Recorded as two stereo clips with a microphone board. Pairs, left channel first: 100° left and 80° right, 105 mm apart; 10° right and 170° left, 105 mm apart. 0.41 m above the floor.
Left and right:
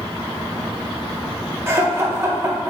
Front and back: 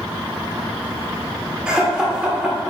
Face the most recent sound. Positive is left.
turn(degrees=-115)